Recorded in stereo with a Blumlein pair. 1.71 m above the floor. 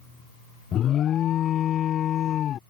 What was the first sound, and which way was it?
An alarm, 30° left.